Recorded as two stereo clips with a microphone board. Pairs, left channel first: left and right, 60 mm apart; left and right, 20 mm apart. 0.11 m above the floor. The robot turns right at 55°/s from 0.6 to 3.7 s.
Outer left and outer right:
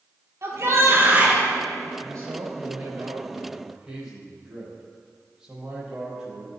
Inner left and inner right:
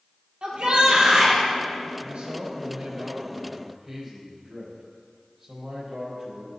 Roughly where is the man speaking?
Right.